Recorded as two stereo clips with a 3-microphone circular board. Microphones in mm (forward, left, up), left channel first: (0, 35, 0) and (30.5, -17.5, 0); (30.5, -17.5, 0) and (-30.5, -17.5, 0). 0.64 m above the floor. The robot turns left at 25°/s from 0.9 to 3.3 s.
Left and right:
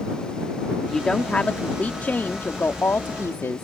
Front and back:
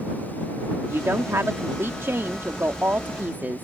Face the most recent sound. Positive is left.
turn(degrees=135)